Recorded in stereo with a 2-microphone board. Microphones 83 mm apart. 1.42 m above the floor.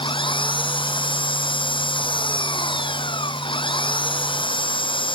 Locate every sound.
0.0 s an engine running: 85° left